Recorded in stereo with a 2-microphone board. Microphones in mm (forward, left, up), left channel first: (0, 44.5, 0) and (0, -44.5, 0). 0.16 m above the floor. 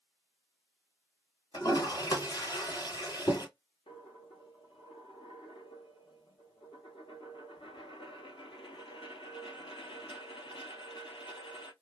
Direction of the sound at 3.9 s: 75° left (ahead or behind).